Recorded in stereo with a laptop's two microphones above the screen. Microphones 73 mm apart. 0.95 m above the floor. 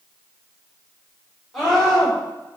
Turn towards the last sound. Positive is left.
turn(degrees=-5)  # may be behind; listen again after turning